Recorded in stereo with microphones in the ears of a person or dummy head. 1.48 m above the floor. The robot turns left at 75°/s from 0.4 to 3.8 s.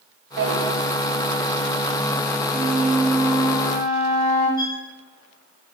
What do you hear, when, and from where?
0.4 s a drawer: 65° right (ahead or behind), 4.5 m; by 0.5 s 70° right (ahead or behind), 4.5 m
2.5 s a flute: 130° right, 8 m; by 4.5 s 135° left, 8 m
4.6 s a violin: 20° left (ahead or behind), 4.5 m